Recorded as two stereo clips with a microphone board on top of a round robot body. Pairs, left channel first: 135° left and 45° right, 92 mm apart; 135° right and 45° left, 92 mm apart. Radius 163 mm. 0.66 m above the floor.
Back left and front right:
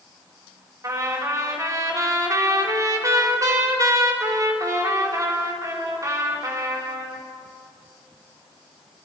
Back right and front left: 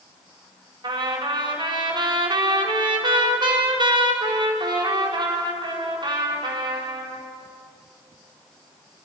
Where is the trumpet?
10° left, 4 m.